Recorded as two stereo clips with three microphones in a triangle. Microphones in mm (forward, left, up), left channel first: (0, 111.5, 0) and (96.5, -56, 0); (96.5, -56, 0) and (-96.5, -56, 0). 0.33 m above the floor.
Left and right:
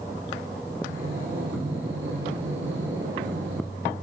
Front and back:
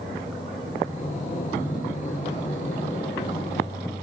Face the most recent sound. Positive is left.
turn(degrees=-50)